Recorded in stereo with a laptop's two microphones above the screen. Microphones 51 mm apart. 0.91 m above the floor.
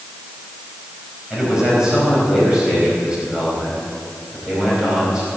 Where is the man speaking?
15° right (ahead or behind), 5 m.